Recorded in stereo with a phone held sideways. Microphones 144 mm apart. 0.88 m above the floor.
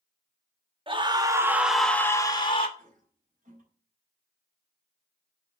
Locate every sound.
0.9 s a scream: 35° right (ahead or behind), 1.8 m; by 2.7 s 40° left (ahead or behind), 1.7 m
2.8 s a toilet flushing: 65° right (ahead or behind), 5.5 m